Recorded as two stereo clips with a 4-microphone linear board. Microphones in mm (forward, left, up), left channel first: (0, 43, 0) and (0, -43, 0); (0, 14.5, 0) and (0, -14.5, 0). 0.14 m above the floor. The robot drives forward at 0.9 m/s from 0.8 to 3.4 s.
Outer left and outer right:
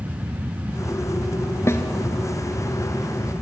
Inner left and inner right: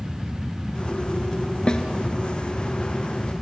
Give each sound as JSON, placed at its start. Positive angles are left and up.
{"t": 1.7, "sound": "a snare drum", "side_deg": 35, "distance_m": 1.6}